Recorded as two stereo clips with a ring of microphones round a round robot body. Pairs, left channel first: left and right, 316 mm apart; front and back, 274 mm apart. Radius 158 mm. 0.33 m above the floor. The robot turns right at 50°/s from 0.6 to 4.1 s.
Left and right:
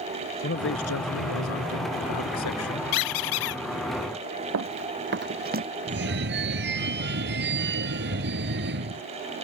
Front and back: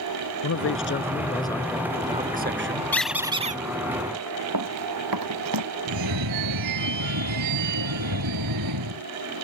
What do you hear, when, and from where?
0.4 s a man speaking: 35° left; by 2.8 s 145° left
2.9 s a squeak: 85° left; by 3.6 s 120° left
4.5 s running footsteps: 140° right; by 5.7 s 155° right
5.9 s a phone ringing: 150° right